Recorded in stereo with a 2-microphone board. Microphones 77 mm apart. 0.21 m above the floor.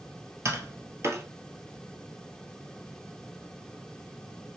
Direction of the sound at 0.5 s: 40° right (ahead or behind).